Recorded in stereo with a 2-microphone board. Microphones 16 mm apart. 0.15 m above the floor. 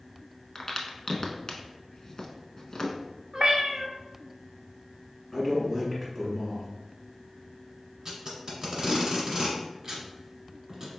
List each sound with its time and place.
0.6 s a crack: 40° left (ahead or behind), 0.6 m
3.3 s a cat meowing: 45° right (ahead or behind), 0.7 m
5.3 s a man speaking: centre (ahead or behind), 1.7 m
8.1 s tape being pulled: 35° right (ahead or behind), 1.4 m